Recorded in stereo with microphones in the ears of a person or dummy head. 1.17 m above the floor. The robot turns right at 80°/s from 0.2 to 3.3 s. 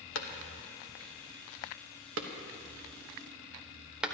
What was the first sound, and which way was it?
A clap, 75° left (ahead or behind).